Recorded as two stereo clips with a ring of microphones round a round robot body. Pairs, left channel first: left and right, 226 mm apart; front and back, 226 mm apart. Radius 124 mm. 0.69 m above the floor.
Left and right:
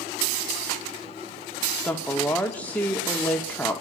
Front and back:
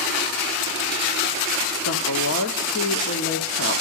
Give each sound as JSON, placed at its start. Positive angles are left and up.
{"t": 1.8, "sound": "a woman speaking", "azimuth_deg": 10, "distance_m": 1.6}